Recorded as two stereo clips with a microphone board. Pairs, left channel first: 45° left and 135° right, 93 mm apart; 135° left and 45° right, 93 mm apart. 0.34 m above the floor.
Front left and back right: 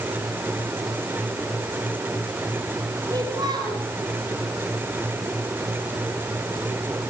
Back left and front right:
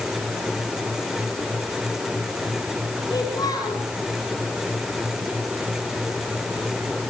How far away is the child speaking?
About 5.5 m.